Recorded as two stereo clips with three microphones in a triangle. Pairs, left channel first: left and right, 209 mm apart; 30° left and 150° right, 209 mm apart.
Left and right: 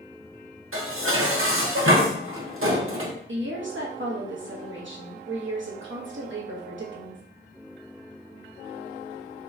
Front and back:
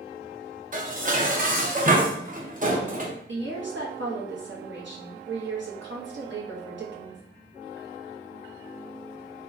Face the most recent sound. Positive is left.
turn(degrees=-120)